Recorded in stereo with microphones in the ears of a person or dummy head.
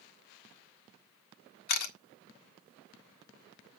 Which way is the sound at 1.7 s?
55° left (ahead or behind).